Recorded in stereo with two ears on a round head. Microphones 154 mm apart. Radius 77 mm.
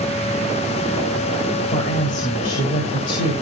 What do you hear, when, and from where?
1.7 s a woman speaking: 45° left (ahead or behind), 2 m